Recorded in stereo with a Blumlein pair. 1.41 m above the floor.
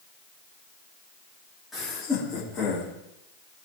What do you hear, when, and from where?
1.7 s laughter: 10° left, 3.5 m; by 2.9 s 20° left, 5 m